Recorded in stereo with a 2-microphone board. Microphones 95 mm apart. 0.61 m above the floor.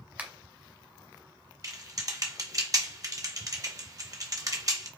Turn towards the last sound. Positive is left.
turn(degrees=-40)  # may be behind; listen again after turning